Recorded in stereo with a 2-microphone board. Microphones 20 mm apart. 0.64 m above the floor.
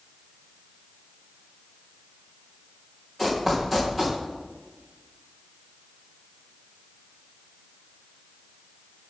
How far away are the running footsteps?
About 3 m.